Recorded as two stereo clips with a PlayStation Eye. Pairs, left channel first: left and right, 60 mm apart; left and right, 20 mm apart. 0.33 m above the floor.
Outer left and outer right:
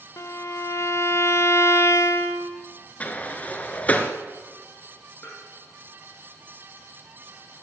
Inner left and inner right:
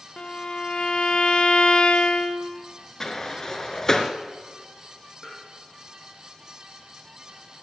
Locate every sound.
0.2 s a violin: 55° left (ahead or behind), 0.8 m
3.0 s a sliding door: 25° left (ahead or behind), 1.1 m
5.2 s tapping: 30° left (ahead or behind), 4.5 m